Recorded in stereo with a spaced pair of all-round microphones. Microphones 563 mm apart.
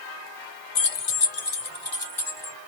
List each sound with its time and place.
0.8 s keys jangling: 85° left, 0.7 m; by 2.5 s 75° left (ahead or behind), 1.7 m